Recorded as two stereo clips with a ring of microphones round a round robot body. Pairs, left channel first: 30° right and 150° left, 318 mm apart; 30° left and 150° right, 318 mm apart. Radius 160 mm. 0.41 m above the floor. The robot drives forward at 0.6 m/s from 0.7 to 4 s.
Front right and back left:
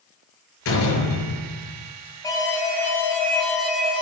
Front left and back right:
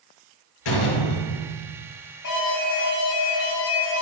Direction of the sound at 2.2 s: 50° left.